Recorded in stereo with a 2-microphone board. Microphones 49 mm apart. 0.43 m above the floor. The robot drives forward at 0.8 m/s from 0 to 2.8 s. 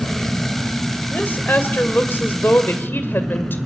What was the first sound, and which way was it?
An engine running, 25° left (ahead or behind).